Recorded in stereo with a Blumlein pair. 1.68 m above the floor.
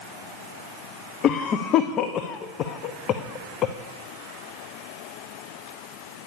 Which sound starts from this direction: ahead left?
A cough, at 1.2 s.